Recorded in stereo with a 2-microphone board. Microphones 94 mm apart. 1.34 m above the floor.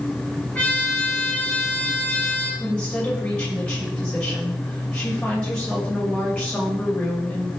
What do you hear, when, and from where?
0.6 s a trumpet: 15° left (ahead or behind), 5.5 m
2.6 s a woman speaking: 10° left (ahead or behind), 6.5 m